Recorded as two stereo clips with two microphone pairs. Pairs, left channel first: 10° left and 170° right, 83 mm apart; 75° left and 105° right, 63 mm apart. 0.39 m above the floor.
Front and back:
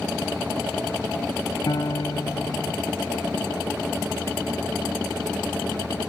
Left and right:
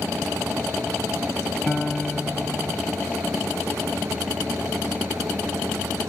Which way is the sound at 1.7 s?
5° right.